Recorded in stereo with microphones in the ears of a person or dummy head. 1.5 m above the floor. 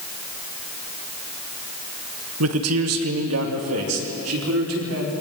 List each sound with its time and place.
2.4 s a man speaking: 80° right, 1.7 m; by 5.1 s 85° right, 5.5 m